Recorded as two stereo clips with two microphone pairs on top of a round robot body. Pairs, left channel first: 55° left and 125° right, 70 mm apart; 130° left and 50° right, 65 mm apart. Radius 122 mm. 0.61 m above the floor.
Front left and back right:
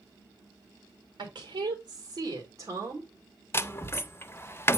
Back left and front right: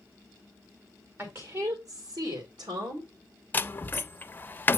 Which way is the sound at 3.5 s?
85° left.